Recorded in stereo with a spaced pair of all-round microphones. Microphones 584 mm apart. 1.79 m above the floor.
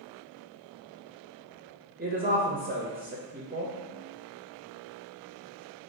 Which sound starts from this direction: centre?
A woman speaking, at 2.0 s.